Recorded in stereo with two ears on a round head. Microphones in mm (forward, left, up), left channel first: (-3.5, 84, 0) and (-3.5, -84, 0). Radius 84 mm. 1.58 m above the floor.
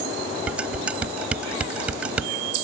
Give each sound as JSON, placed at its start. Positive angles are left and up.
{"t": 0.5, "sound": "dishes clattering", "side_deg": -5}